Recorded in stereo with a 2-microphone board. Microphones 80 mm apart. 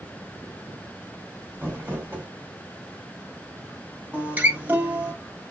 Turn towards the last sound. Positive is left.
turn(degrees=-20)  # may be behind; listen again after turning